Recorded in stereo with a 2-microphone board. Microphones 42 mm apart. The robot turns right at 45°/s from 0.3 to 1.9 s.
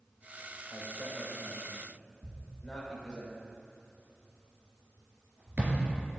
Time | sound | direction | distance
0.7 | a man speaking | 35° right (ahead or behind) | 3.5 m
2.2 | a thud | 35° right (ahead or behind) | 2.5 m